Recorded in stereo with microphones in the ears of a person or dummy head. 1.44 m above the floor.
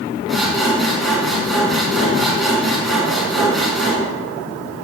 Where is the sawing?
Centre (ahead or behind), 5.5 m.